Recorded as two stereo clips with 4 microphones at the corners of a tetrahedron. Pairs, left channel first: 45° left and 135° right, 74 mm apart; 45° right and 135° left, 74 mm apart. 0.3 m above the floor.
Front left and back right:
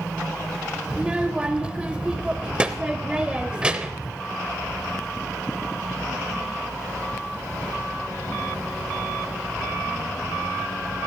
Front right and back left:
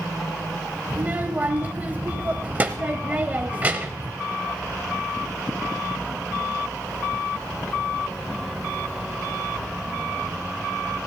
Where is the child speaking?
165° left, 0.6 m.